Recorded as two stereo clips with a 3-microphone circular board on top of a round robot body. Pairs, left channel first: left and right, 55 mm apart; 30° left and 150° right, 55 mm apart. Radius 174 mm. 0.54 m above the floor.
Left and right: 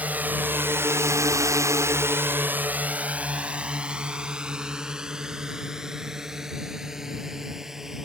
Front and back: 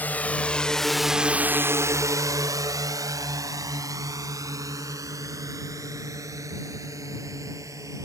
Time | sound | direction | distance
0.0 | a drone | 30° right | ?